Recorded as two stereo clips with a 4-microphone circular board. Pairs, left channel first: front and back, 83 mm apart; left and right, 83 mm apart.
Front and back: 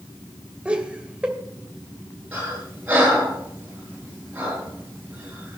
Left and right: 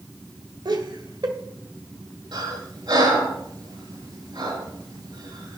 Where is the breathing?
110° right, 8 m.